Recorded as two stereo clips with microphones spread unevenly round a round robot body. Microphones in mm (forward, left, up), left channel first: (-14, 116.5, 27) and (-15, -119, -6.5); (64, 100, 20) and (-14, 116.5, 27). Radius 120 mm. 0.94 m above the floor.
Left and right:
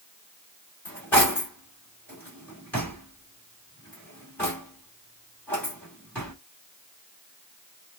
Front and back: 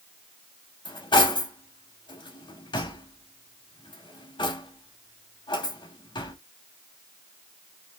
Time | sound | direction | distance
0.8 | cutlery clinking | 10° left | 1.5 m